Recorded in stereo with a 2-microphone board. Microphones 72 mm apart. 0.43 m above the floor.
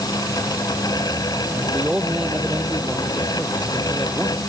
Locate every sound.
1.5 s a man speaking: 10° right (ahead or behind)